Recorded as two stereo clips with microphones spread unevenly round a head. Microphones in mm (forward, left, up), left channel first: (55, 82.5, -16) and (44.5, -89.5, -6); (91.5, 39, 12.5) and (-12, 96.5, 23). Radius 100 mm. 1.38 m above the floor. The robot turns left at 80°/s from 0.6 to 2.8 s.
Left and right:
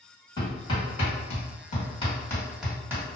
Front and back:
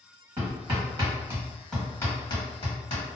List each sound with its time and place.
0.4 s hammering: 155° left, 1.4 m; by 3.0 s 25° right, 1.4 m